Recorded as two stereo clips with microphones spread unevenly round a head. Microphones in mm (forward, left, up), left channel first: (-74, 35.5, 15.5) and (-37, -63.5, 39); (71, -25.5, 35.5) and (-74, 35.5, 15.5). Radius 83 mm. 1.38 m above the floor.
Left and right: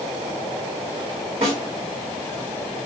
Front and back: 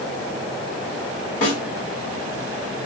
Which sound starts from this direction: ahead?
A snare drum, at 1.4 s.